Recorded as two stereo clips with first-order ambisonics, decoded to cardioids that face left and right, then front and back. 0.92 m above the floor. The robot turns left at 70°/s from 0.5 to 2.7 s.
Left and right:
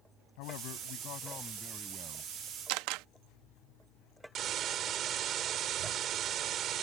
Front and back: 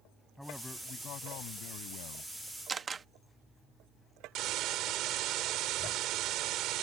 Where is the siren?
I don't hear a siren.